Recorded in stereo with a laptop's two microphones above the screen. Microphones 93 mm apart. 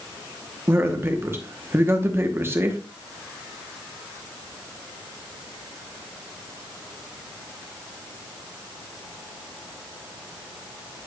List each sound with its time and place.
0.7 s a man speaking: 25° right (ahead or behind), 0.9 m